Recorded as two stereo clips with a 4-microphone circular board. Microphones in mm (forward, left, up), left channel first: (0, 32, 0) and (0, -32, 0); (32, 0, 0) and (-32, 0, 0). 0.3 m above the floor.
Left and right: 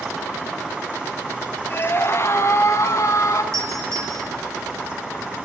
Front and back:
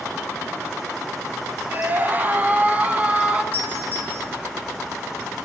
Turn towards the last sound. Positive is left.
turn(degrees=-125)